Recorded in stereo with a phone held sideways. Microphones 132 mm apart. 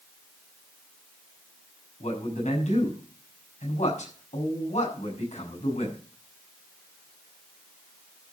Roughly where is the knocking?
No knocking in this recording.